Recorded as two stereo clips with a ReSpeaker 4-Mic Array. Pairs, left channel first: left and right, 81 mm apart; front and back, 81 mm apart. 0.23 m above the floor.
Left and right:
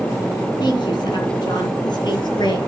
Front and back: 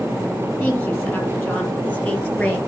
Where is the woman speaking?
60° left, 7.5 m; by 2.6 s 65° left, 5.5 m.